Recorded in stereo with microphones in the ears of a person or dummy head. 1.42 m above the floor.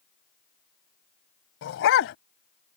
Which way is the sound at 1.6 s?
65° left (ahead or behind).